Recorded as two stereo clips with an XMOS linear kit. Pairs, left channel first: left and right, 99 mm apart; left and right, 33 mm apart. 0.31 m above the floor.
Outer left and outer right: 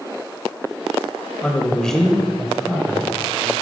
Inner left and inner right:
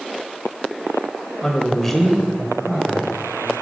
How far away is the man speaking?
About 1.0 m.